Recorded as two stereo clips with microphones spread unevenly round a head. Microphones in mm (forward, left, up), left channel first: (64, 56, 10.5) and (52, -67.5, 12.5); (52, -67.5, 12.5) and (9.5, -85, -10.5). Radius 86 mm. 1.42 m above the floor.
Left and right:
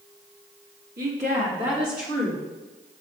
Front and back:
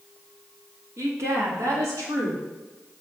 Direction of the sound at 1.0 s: 140° right.